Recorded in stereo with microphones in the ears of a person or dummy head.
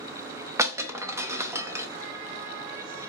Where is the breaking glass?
15° right (ahead or behind), 0.7 m.